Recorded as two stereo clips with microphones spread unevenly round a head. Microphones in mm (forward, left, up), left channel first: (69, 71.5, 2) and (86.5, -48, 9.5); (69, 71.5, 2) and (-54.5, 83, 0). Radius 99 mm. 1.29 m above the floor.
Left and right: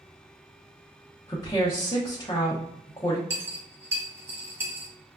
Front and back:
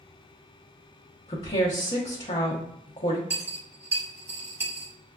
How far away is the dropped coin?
About 0.6 m.